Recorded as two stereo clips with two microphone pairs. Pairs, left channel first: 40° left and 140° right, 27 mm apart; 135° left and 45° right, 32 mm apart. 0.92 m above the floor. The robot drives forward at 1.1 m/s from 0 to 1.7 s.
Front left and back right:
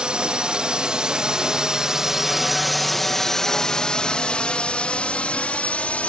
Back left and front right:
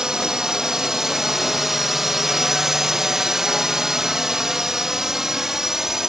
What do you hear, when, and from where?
0.0 s a drone: 105° right; by 6.1 s 30° left